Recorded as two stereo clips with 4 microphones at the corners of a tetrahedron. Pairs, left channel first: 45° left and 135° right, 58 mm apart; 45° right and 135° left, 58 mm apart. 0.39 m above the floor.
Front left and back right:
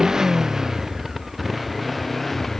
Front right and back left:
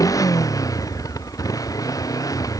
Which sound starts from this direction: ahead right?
A motorcycle, at 0.0 s.